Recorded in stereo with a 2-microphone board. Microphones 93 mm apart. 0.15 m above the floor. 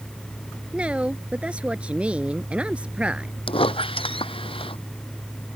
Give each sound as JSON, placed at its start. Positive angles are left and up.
{"t": 0.7, "sound": "a woman speaking", "side_deg": -10}
{"t": 3.5, "sound": "a squeak", "side_deg": 75}